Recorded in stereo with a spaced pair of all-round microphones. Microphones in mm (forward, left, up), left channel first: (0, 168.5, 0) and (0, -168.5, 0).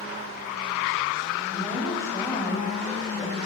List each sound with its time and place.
1.5 s a woman speaking: 10° left (ahead or behind), 7.5 m